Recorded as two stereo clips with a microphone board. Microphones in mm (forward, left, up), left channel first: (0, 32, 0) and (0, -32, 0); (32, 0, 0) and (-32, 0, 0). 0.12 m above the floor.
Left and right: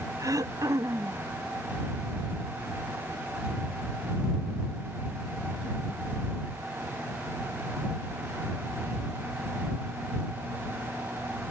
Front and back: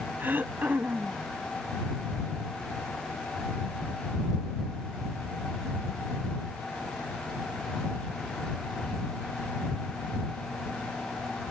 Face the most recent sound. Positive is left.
turn(degrees=-120)